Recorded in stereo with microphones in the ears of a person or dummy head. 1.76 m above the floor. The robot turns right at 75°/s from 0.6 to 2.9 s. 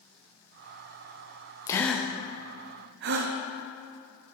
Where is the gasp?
25° left (ahead or behind), 0.7 m; by 4.3 s 55° right (ahead or behind), 0.7 m.